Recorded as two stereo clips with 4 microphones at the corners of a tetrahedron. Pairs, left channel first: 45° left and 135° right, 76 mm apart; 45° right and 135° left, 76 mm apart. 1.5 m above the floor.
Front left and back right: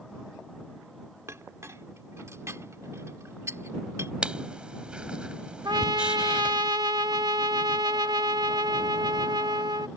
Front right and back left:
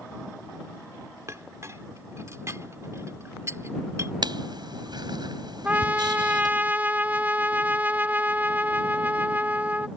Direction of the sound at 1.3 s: Straight behind.